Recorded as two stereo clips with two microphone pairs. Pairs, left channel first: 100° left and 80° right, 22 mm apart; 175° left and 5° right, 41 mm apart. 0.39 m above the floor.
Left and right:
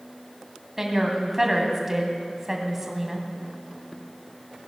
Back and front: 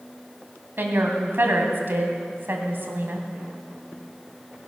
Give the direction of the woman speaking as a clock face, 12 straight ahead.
12 o'clock.